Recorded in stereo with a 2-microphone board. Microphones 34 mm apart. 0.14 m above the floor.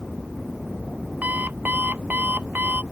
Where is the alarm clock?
60° right (ahead or behind).